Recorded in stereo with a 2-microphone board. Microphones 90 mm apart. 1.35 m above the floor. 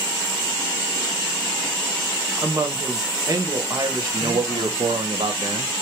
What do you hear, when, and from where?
2.4 s a woman speaking: 40° right (ahead or behind), 1.0 m
4.1 s a man speaking: 65° right (ahead or behind), 0.8 m